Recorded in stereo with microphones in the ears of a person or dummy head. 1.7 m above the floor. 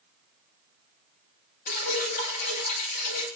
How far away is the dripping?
About 8.5 m.